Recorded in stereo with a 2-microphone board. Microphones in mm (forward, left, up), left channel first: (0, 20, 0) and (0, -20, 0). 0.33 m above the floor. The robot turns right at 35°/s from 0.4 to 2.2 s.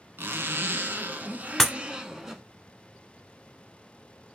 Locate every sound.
0.2 s a zipper: 75° right, 0.6 m; by 2.4 s 15° right, 0.6 m
1.6 s breaking glass: 5° left (ahead or behind), 0.5 m; by 1.7 s centre (ahead or behind), 0.5 m